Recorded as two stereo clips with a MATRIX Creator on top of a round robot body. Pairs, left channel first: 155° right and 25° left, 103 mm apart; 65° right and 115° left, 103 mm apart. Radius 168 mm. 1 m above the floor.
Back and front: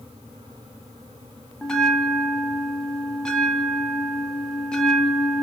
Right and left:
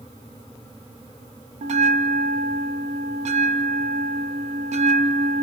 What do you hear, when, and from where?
1.6 s a bell: 120° left, 0.6 m